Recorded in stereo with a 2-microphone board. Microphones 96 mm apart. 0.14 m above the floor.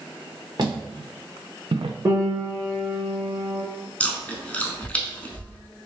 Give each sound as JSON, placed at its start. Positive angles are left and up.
{"t": 0.6, "sound": "footsteps", "side_deg": -50, "distance_m": 1.5}
{"t": 2.0, "sound": "a piano", "side_deg": -35, "distance_m": 1.5}
{"t": 4.0, "sound": "chewing", "side_deg": 15, "distance_m": 0.7}